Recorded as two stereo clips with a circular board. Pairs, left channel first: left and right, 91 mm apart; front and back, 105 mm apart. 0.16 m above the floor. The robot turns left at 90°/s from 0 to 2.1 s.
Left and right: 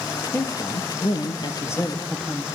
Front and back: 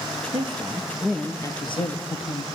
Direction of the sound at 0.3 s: 160° left.